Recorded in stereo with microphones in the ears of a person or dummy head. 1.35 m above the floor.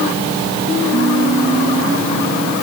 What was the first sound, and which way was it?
Only background noise.